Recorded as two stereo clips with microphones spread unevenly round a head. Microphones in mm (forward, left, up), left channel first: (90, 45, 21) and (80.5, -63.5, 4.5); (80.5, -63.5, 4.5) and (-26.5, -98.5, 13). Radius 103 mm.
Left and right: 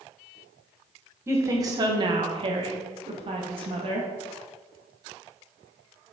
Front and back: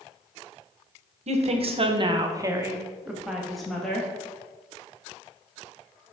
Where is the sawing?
I don't hear sawing.